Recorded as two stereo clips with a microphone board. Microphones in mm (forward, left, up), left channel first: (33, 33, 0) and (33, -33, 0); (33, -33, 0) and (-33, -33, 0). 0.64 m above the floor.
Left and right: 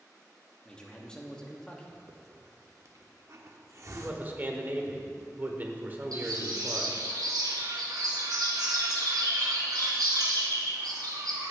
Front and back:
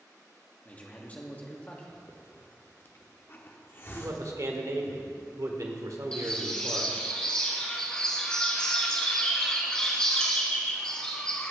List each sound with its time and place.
0.7 s a man speaking: 30° left, 1.3 m
2.1 s a hiss: 55° right, 0.9 m
4.0 s a man speaking: 150° right, 1.5 m
6.1 s a bird: 80° right, 2.5 m